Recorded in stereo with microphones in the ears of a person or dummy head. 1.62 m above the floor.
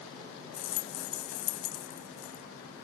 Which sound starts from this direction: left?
A rattle, at 0.5 s.